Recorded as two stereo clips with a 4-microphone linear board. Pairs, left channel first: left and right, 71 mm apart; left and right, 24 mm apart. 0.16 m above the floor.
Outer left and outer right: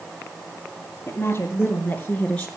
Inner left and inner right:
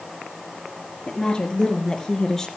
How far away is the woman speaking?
About 2.5 m.